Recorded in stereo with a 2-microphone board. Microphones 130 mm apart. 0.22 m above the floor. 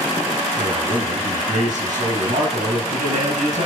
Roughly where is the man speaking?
Right.